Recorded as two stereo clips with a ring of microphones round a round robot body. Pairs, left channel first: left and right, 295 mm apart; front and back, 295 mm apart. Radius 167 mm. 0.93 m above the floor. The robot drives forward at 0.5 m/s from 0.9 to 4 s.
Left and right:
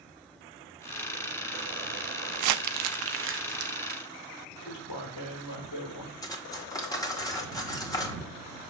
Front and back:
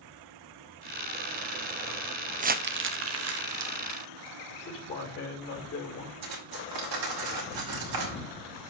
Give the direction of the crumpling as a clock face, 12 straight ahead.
4 o'clock.